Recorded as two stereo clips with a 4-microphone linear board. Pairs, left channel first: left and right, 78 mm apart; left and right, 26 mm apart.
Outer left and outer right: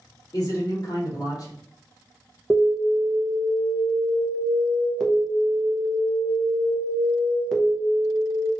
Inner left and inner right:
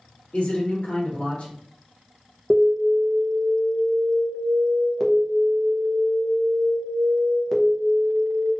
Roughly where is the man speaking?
Left.